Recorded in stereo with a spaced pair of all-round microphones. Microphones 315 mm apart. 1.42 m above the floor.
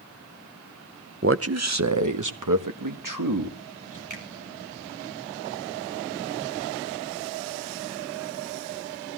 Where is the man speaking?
40° right (ahead or behind), 0.7 m; by 4.0 s 80° right, 2.5 m.